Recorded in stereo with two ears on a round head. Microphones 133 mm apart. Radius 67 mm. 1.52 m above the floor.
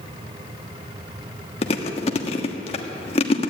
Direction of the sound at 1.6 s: 40° left (ahead or behind).